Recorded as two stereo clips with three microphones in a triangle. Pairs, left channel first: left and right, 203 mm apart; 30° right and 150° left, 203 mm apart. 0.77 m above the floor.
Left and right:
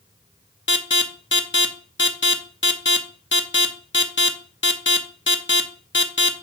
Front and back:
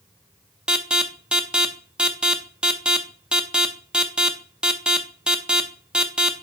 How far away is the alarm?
About 0.8 m.